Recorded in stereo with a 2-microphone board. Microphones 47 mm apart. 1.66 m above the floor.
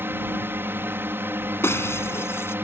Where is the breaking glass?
70° left (ahead or behind).